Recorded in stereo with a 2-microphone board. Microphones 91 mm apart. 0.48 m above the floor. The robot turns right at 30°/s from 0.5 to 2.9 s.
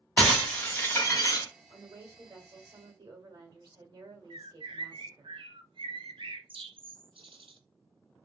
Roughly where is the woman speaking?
Behind right.